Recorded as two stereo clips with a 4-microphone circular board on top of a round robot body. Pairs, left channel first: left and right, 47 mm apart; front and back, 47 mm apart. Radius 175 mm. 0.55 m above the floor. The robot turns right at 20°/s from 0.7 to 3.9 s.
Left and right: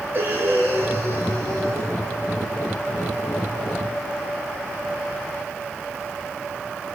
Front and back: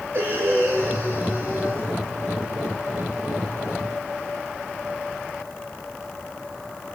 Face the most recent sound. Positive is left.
turn(degrees=-75)